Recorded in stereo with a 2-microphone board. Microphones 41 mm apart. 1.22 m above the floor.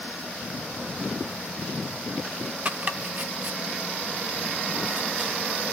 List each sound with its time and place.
2.6 s chopping: 35° right (ahead or behind), 1.3 m